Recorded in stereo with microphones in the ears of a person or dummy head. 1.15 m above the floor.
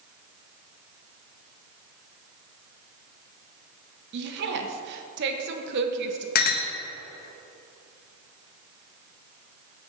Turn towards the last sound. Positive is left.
turn(degrees=45)  # may be behind; listen again after turning